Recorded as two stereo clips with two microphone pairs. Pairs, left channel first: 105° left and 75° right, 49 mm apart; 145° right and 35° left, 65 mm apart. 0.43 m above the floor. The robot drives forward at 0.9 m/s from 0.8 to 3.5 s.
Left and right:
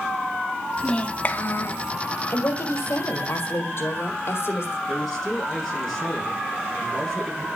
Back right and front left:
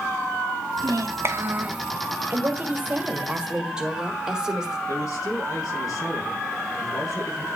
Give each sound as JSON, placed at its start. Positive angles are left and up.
{"t": 0.8, "sound": "a child speaking", "azimuth_deg": 40, "distance_m": 1.1}
{"t": 2.3, "sound": "a woman speaking", "azimuth_deg": 80, "distance_m": 2.0}
{"t": 4.9, "sound": "a man speaking", "azimuth_deg": -160, "distance_m": 7.5}